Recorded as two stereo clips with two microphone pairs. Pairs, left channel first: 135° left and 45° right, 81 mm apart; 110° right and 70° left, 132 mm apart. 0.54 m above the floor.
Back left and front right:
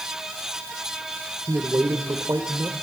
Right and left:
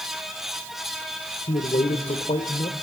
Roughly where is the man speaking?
Right.